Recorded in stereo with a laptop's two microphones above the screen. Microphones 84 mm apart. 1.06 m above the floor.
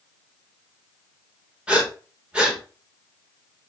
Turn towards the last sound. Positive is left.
turn(degrees=-15)  # may be behind; listen again after turning